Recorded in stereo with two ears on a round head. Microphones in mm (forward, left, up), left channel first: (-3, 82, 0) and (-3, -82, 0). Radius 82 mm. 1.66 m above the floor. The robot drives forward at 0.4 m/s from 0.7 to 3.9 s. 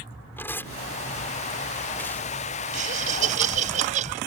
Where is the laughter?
45° right (ahead or behind); by 4.2 s 40° right (ahead or behind).